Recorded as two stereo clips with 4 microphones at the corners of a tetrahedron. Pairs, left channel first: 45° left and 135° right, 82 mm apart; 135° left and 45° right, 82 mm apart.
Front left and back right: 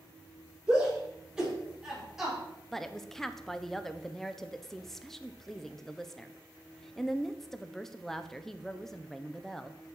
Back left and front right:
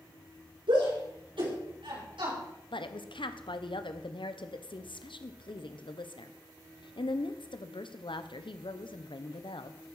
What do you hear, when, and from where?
0.7 s a shout: 55° right, 6.5 m; by 2.4 s 50° right, 5.5 m
2.7 s a woman speaking: 130° left, 0.9 m